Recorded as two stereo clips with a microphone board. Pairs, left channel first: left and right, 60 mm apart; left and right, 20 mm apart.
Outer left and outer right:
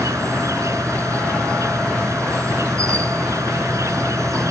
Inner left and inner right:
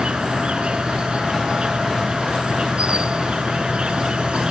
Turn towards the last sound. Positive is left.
turn(degrees=-60)  # may be behind; listen again after turning